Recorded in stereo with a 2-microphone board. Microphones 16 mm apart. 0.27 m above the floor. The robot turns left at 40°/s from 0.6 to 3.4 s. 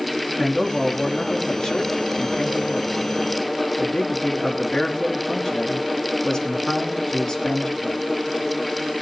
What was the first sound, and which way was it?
A man speaking, 145° left.